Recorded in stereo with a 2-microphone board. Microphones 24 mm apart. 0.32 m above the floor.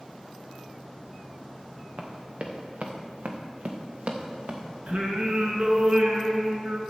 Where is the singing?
75° right (ahead or behind), 1.9 m.